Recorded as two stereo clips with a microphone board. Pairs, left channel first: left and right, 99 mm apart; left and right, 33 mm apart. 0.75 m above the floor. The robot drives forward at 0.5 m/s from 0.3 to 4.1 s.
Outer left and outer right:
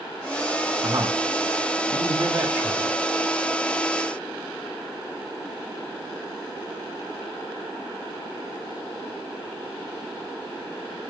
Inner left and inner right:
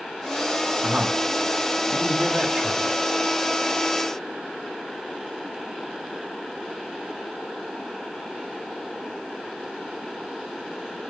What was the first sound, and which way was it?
A man speaking, 30° right (ahead or behind).